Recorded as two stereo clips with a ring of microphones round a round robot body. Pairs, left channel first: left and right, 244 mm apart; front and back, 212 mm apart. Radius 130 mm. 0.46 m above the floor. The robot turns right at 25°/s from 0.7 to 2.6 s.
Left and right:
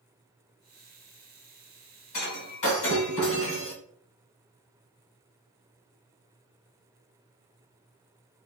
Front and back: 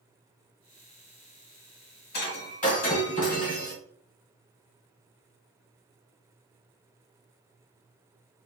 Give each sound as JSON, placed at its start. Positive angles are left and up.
{"t": 2.1, "sound": "breaking glass", "azimuth_deg": 40, "distance_m": 2.0}